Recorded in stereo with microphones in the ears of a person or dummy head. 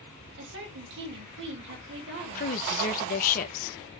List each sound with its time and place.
0.4 s a woman speaking: 65° right (ahead or behind), 2.5 m
2.4 s a woman speaking: 45° left (ahead or behind), 1.1 m